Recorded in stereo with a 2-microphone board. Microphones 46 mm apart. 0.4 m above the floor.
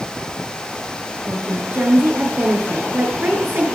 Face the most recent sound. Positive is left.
turn(degrees=-50)  # may be behind; listen again after turning